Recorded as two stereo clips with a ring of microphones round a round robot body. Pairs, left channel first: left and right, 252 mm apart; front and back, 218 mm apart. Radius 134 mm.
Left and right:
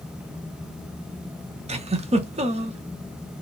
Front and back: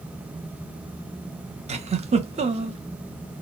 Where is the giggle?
140° right, 0.7 m.